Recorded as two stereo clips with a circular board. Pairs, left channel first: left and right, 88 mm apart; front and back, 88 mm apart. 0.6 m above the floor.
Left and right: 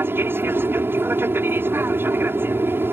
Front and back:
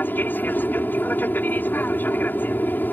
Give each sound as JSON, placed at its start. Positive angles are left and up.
{"t": 0.0, "sound": "an aircraft", "azimuth_deg": -50}